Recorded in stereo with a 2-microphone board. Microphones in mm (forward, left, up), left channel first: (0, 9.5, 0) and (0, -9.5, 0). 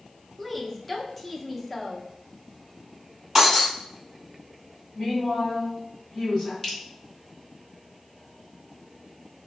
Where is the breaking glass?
10° right (ahead or behind), 1.9 m.